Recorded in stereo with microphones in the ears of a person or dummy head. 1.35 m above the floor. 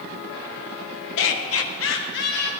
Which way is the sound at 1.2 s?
70° left (ahead or behind).